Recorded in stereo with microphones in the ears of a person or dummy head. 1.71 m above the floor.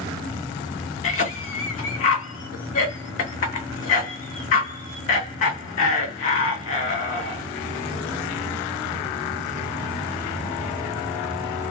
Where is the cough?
45° left (ahead or behind), 0.9 m.